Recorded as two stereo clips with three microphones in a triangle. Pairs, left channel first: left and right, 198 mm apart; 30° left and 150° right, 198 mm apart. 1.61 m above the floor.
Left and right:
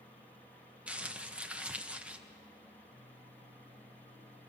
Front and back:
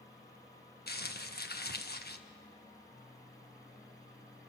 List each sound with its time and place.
0.9 s crumpling: 5° right, 1.3 m